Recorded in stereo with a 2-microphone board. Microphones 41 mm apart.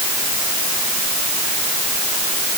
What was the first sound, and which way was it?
Only background noise.